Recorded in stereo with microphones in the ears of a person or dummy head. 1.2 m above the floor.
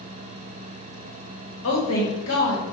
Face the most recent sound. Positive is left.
turn(degrees=70)  # may be behind; listen again after turning